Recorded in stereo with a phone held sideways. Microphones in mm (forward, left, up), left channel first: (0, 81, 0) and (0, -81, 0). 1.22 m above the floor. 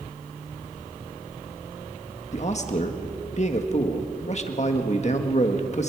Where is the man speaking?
50° left (ahead or behind), 1.6 m.